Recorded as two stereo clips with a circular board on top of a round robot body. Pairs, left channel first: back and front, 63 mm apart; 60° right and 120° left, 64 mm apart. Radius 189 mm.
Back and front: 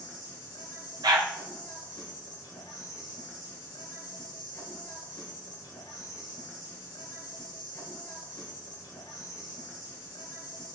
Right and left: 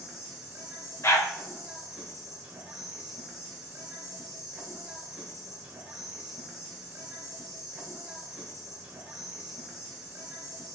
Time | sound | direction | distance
0.0 | an insect | 165° right | 1.5 m
1.0 | a dog barking | 15° right | 1.0 m